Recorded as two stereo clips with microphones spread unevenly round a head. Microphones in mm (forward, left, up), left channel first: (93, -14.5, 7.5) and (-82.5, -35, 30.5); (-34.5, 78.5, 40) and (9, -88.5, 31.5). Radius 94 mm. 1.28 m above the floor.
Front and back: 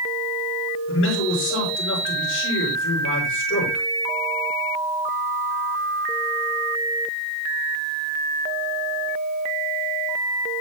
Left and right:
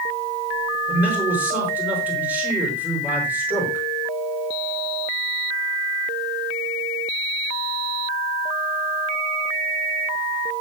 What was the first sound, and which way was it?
A man speaking, 5° left.